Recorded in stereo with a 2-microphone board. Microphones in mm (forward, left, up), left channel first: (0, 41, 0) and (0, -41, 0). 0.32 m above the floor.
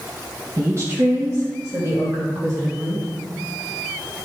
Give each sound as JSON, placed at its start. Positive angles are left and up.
{"t": 0.6, "sound": "a woman speaking", "side_deg": -35, "distance_m": 1.8}